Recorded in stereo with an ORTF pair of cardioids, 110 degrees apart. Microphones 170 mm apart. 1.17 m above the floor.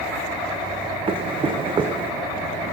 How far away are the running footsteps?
About 4 m.